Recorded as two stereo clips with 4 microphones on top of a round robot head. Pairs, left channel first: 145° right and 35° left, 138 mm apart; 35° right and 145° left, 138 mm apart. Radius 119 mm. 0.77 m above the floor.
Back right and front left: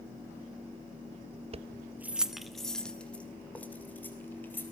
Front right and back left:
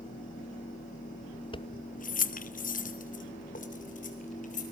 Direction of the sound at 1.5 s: 10° left.